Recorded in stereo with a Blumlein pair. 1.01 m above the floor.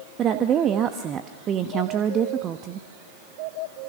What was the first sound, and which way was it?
A woman speaking, 30° right.